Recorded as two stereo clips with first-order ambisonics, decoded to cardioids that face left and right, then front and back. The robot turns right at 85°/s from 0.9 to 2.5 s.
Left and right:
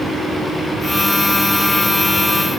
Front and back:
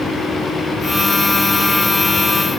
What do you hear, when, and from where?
Only background noise.